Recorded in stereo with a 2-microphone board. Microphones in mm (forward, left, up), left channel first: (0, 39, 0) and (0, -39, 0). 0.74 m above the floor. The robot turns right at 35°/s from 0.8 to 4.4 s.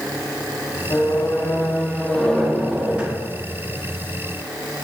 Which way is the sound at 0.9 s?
125° left.